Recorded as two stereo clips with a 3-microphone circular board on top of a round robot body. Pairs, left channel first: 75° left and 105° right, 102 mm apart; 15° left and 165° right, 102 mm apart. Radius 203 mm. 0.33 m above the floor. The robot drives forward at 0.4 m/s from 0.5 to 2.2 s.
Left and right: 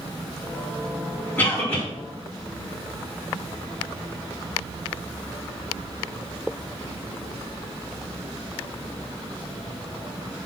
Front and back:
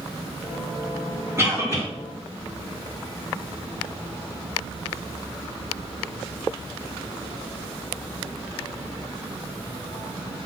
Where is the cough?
145° left, 1.5 m; by 1.8 s 150° left, 1.6 m.